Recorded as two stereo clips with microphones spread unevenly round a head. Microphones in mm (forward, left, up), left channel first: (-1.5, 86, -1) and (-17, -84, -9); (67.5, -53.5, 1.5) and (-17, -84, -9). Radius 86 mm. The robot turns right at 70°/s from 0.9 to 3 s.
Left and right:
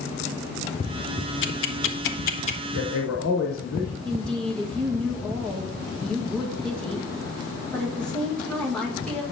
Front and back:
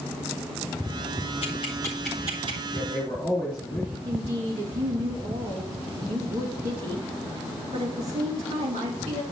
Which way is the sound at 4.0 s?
170° left.